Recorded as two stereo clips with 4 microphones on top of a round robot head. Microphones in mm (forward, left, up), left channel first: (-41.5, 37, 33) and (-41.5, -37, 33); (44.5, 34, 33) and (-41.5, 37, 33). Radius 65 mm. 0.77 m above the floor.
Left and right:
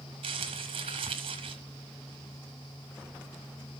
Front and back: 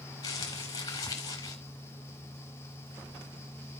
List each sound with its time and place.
0.2 s crumpling: 60° right, 1.6 m